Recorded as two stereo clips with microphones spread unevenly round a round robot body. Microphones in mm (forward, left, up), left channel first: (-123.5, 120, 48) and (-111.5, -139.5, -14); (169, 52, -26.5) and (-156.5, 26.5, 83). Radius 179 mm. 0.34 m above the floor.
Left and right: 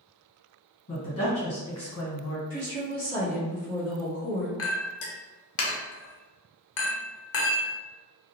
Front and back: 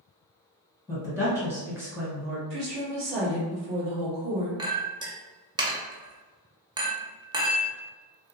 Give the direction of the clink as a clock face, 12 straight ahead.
9 o'clock.